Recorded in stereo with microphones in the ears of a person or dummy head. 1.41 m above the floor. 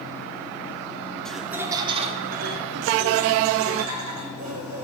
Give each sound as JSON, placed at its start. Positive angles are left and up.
{"t": 1.2, "sound": "laughter", "side_deg": 10, "distance_m": 0.7}